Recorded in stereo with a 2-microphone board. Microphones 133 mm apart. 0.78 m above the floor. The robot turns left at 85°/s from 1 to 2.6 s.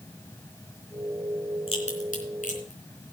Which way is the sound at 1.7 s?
40° left (ahead or behind).